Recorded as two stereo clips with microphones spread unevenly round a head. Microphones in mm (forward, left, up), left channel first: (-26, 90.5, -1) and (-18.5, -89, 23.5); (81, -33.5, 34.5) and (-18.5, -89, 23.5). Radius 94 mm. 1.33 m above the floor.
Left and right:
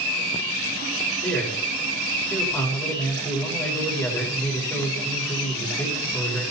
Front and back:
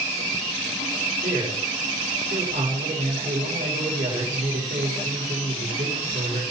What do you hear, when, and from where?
1.2 s a man speaking: 170° left, 5.5 m